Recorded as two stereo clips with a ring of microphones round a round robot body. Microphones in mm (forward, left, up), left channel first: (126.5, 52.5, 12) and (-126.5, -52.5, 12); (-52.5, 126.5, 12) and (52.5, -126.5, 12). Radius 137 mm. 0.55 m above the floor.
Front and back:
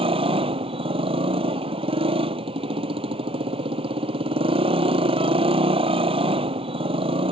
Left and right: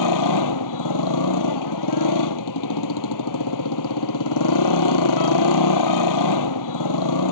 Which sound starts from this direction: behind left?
A motorcycle, at 0.0 s.